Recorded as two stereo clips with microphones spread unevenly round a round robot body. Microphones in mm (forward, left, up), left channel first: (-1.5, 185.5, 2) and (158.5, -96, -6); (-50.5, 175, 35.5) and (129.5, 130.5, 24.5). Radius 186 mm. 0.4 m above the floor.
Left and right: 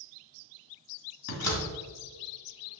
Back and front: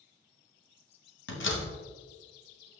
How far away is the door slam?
About 1.7 m.